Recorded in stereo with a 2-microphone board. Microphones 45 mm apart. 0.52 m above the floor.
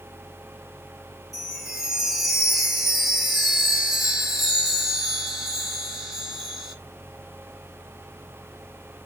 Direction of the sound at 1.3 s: 5° right (ahead or behind).